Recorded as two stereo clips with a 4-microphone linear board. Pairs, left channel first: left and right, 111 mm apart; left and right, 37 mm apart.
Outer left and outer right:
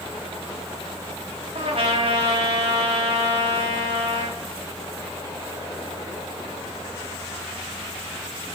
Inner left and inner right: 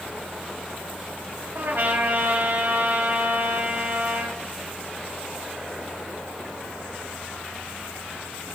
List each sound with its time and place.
1.6 s a trumpet: 60° right (ahead or behind), 2.5 m